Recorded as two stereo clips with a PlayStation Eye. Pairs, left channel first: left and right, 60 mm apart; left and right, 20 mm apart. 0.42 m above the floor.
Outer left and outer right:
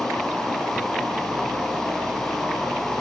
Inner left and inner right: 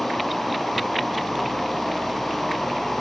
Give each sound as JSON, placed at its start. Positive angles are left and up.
{"t": 0.0, "sound": "an insect", "side_deg": -5, "distance_m": 5.0}